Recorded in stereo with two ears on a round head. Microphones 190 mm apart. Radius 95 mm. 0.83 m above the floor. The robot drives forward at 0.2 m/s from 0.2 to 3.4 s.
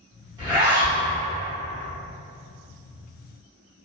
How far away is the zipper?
About 1.1 m.